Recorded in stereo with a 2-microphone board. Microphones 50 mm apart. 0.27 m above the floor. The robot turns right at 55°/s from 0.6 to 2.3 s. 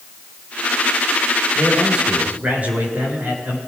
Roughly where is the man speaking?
Behind.